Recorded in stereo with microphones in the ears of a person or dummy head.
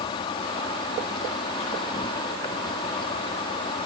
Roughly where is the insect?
Left.